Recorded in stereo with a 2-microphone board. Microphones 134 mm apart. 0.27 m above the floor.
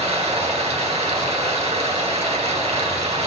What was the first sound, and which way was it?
Running water, 50° right (ahead or behind).